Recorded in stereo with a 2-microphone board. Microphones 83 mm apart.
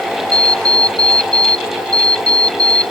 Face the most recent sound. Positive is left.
turn(degrees=-50)  # may be behind; listen again after turning